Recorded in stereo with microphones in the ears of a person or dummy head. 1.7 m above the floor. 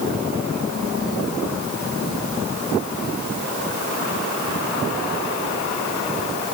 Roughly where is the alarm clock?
I don't hear an alarm clock.